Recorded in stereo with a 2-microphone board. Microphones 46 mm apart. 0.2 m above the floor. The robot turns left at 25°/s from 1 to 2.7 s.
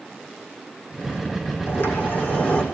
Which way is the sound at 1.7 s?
55° left (ahead or behind).